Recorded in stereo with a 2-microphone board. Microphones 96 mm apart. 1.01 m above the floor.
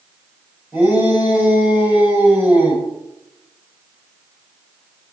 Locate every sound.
0.7 s a shout: 20° right (ahead or behind), 7.5 m